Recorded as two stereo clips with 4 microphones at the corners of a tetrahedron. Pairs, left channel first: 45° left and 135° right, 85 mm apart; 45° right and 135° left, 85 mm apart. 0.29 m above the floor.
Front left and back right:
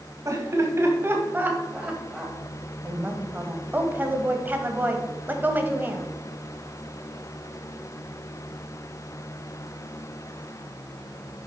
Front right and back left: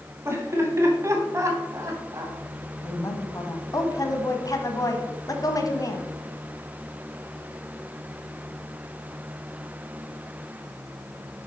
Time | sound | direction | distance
0.2 | laughter | 175° right | 2.5 m
2.8 | a woman speaking | 75° right | 1.3 m